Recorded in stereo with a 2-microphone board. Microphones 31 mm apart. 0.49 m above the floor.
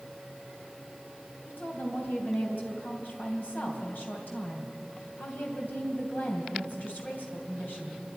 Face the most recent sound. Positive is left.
turn(degrees=65)  # may be behind; listen again after turning